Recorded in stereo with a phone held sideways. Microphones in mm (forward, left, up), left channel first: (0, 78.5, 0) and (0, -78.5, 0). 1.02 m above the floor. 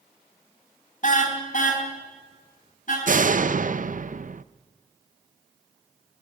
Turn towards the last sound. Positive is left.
turn(degrees=-55)  # may be behind; listen again after turning